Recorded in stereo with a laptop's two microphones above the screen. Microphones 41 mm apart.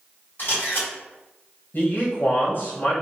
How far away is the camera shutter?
About 1.8 m.